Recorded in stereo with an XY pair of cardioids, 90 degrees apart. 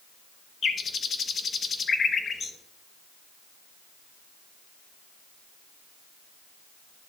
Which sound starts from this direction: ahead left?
A bird, at 0.6 s.